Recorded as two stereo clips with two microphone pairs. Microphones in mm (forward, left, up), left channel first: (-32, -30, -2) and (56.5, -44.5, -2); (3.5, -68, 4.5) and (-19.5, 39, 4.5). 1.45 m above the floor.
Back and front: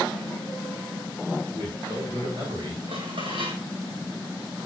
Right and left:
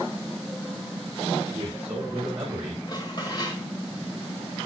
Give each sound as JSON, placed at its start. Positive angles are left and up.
{"t": 1.5, "sound": "a man speaking", "azimuth_deg": 35, "distance_m": 7.5}
{"t": 2.9, "sound": "dishes clattering", "azimuth_deg": -30, "distance_m": 4.5}